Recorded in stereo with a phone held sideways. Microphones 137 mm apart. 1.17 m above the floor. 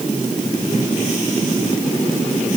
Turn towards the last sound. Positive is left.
No sound to turn to.